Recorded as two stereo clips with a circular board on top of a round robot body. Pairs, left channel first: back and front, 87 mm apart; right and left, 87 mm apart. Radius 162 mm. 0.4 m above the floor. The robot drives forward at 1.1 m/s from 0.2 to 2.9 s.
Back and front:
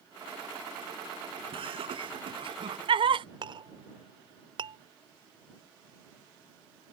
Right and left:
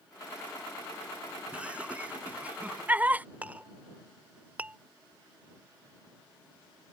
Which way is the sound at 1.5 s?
15° left.